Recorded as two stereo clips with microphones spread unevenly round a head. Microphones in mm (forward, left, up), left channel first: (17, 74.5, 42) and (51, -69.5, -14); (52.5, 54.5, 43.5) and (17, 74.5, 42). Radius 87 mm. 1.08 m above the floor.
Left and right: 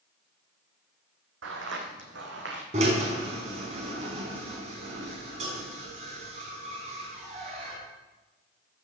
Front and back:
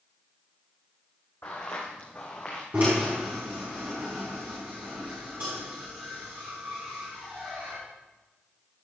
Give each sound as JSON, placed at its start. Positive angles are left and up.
{"t": 1.4, "sound": "footsteps", "azimuth_deg": -95, "distance_m": 3.0}
{"t": 2.7, "sound": "a drill", "azimuth_deg": -135, "distance_m": 4.0}